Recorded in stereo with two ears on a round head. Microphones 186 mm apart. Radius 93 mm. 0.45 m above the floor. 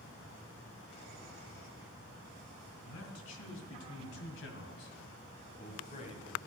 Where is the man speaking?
75° left (ahead or behind), 3 m; by 6.4 s 25° left (ahead or behind), 2.5 m.